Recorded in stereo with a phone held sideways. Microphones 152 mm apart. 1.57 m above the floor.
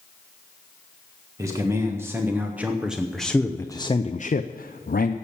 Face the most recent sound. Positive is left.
turn(degrees=75)  # may be behind; listen again after turning